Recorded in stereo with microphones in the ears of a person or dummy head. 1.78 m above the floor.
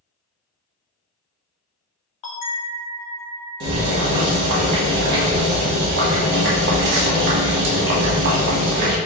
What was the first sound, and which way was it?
A bell, 35° left (ahead or behind).